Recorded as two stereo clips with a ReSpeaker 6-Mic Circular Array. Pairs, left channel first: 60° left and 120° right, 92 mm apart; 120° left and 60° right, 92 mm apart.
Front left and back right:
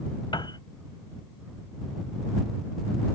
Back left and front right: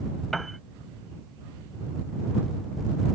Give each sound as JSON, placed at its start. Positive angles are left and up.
{"t": 0.3, "sound": "a piano", "azimuth_deg": 35}